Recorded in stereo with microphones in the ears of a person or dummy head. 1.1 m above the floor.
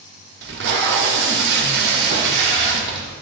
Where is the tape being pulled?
75° right (ahead or behind), 1.1 m.